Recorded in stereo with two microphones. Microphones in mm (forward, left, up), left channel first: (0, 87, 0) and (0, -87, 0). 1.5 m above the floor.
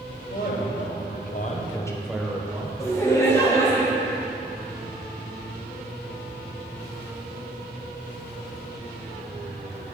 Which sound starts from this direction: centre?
Laughter, at 2.8 s.